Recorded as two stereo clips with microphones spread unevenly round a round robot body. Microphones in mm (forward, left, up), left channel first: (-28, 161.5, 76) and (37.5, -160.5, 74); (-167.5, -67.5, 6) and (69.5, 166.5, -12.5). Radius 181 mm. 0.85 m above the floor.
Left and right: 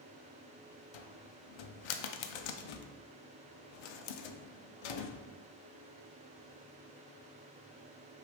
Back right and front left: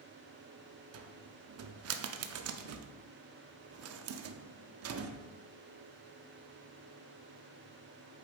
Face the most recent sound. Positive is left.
turn(degrees=95)